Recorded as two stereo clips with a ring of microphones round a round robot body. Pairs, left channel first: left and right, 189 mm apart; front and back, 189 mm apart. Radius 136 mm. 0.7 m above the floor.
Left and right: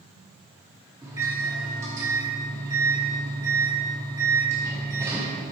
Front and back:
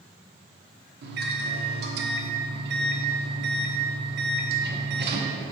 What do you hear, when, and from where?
1.0 s a microwave: 165° right, 0.9 m